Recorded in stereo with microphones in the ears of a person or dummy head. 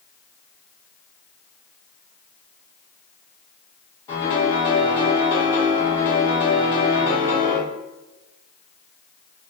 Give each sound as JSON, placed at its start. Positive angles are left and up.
{"t": 4.1, "sound": "a piano", "side_deg": 20, "distance_m": 1.7}